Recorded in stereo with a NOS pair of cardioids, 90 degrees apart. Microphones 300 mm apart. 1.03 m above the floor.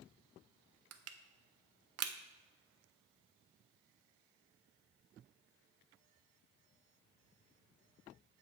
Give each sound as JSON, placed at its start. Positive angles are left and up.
{"t": 0.9, "sound": "crushing", "azimuth_deg": -55, "distance_m": 0.7}